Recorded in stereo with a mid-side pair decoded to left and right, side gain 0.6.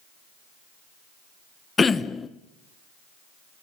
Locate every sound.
1.8 s throat clearing: 25° left, 1.0 m